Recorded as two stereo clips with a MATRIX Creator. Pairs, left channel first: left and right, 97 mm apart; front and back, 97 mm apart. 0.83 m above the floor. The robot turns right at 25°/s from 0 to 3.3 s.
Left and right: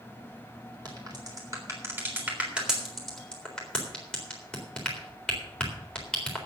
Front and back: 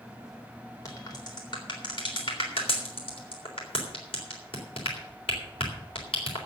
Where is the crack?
50° right, 3.5 m; by 6.5 s 10° left, 3.5 m.